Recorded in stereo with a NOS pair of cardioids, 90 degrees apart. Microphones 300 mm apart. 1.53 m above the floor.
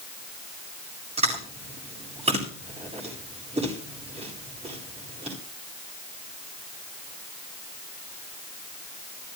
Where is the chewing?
20° right, 8 m.